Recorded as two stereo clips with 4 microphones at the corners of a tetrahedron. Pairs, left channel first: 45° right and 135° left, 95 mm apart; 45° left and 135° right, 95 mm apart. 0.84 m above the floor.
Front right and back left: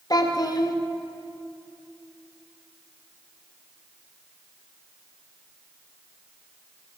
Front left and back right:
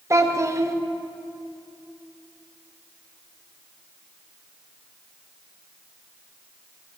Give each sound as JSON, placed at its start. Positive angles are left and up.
{"t": 0.1, "sound": "a child speaking", "azimuth_deg": -80, "distance_m": 0.8}